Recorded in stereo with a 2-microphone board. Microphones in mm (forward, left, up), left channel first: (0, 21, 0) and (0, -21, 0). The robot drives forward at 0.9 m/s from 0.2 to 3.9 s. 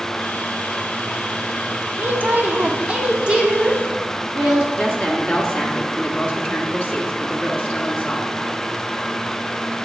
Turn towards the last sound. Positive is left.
turn(degrees=30)  # may be behind; listen again after turning